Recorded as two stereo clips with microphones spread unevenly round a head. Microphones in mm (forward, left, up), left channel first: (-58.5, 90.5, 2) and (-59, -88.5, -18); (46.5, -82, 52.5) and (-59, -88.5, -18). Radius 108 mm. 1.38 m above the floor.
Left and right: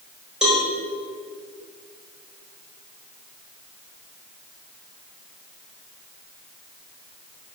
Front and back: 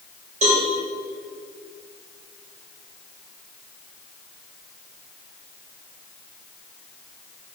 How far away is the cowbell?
About 4 m.